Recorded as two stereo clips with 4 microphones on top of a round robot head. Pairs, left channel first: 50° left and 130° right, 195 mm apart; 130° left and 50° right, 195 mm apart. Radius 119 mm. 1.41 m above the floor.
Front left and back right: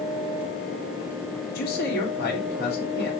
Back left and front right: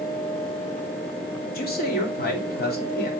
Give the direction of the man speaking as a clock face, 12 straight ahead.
9 o'clock.